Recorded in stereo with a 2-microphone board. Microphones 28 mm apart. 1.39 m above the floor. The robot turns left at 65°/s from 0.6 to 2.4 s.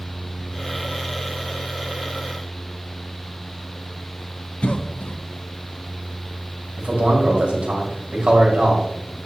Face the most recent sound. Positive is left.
turn(degrees=-60)  # may be behind; listen again after turning